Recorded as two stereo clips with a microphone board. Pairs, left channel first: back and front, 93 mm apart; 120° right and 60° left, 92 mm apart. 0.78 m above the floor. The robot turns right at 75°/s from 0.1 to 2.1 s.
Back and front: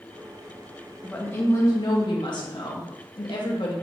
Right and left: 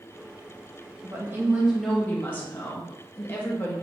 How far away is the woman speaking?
About 0.8 m.